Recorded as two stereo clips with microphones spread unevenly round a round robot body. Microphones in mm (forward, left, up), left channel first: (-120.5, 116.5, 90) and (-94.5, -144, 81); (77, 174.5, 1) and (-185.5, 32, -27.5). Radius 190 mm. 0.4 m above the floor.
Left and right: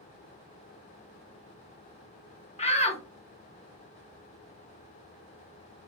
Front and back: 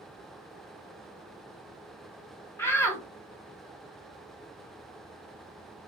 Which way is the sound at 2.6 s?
115° left.